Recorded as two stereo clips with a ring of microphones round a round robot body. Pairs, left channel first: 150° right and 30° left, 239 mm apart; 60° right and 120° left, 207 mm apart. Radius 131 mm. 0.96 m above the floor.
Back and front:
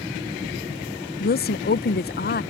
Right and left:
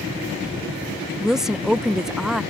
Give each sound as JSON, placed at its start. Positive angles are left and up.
{"t": 1.2, "sound": "a woman speaking", "azimuth_deg": -155}